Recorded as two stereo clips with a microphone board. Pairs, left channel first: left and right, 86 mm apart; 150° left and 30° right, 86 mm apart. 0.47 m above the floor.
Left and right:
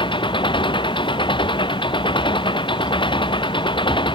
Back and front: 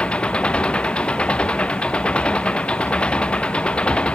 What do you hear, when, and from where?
0.0 s an engine running: 70° left